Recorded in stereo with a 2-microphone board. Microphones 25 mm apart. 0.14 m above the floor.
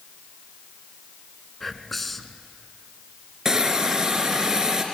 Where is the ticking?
No ticking in this recording.